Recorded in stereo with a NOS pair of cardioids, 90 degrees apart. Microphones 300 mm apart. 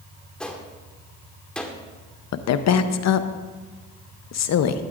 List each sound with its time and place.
0.4 s a gunshot: 5° left, 1.4 m
2.3 s a woman speaking: 65° left, 0.8 m